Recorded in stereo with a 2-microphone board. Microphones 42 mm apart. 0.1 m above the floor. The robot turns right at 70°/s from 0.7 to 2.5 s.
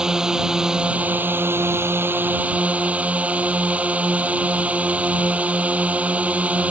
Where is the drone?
160° right; by 6.7 s 35° right.